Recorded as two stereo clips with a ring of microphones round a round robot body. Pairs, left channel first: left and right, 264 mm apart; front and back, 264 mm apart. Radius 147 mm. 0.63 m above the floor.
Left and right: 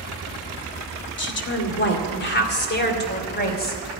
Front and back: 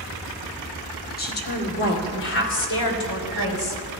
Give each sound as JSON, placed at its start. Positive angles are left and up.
{"t": 1.2, "sound": "a woman speaking", "azimuth_deg": 55, "distance_m": 2.0}